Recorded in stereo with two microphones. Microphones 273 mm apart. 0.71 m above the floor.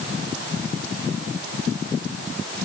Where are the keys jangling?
No keys jangling in this recording.